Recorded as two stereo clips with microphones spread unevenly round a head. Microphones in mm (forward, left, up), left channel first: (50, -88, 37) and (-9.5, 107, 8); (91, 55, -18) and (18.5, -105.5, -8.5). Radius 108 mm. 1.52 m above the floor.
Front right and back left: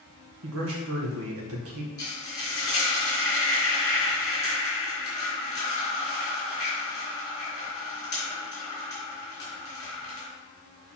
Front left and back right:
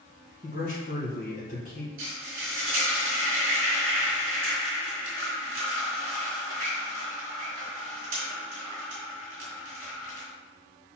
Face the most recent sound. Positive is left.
turn(degrees=-150)